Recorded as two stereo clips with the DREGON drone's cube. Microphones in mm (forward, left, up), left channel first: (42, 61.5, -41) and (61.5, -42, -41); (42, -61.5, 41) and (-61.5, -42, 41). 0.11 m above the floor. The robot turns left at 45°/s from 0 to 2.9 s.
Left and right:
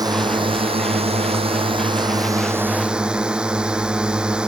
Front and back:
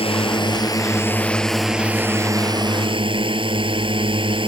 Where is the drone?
30° right; by 4.5 s 160° right.